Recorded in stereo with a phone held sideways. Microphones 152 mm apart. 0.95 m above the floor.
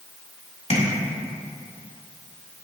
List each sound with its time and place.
0.7 s tapping: 45° left (ahead or behind), 1.9 m